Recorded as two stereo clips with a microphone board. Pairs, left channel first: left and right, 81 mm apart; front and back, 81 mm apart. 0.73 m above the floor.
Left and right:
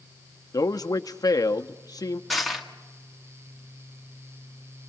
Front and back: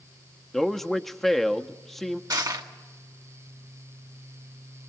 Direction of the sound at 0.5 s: 85° left.